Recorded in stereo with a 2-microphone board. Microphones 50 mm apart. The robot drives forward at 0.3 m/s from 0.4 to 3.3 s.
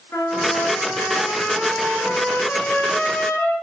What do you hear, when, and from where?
0.1 s a trumpet: 55° left (ahead or behind), 3.5 m; by 3.5 s 40° left (ahead or behind), 4 m